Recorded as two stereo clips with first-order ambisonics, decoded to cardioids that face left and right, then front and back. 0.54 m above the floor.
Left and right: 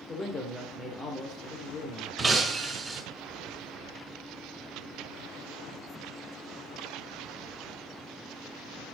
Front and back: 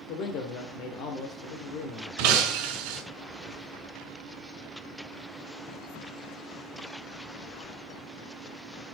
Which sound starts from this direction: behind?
Breaking glass, at 2.2 s.